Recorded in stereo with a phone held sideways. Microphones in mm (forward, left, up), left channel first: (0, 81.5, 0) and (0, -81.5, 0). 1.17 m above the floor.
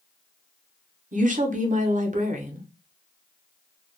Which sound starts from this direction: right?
A woman speaking, at 1.1 s.